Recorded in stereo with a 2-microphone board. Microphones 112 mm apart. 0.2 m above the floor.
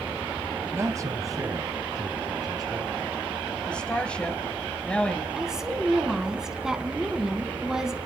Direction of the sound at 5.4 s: 5° right (ahead or behind).